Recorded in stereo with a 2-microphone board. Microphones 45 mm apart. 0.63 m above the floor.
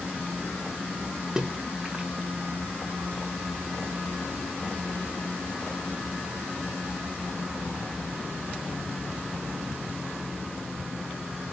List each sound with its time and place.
1.4 s a splash: 20° right (ahead or behind), 0.6 m